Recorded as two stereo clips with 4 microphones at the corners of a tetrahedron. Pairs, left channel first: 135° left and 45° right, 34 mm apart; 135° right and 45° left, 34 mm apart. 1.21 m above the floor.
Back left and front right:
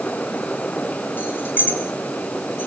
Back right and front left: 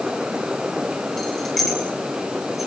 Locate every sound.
1.2 s keys jangling: 140° left, 4 m; by 2.7 s 125° left, 4 m